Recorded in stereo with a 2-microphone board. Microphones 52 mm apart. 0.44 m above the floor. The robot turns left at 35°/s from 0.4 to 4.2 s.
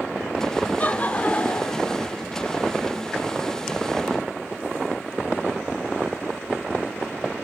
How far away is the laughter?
About 0.9 m.